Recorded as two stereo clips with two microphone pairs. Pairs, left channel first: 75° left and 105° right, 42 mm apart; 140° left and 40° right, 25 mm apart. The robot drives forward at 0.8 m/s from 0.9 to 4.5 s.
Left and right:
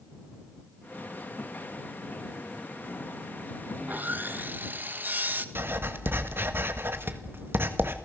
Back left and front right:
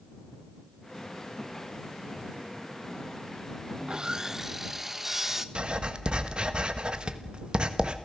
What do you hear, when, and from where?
3.8 s sawing: 75° right, 1.1 m; by 5.5 s 120° right, 1.2 m
5.5 s writing: 85° right, 1.6 m